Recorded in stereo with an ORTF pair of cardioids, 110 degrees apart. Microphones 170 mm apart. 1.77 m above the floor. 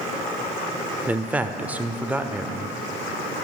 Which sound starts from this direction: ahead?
A man speaking, at 1.1 s.